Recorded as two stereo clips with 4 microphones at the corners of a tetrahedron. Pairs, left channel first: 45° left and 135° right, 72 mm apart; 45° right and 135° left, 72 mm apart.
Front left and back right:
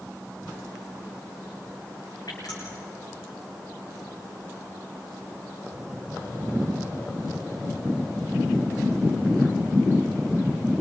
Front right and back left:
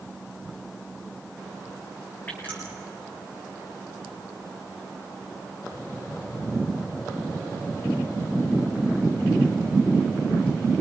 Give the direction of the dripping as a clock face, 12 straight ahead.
11 o'clock.